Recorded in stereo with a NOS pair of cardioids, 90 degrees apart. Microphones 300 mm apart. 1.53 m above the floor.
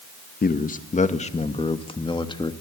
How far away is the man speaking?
About 2 m.